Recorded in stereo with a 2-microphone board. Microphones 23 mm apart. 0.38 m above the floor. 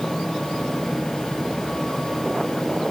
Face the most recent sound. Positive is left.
No sound to turn to.